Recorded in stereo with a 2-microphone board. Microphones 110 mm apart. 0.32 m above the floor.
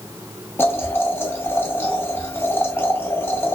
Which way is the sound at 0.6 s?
20° left (ahead or behind).